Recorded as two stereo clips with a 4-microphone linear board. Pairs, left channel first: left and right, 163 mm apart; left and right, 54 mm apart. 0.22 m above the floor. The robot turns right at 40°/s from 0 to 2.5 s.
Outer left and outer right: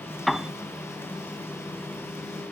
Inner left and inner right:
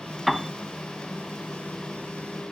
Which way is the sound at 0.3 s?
Centre (ahead or behind).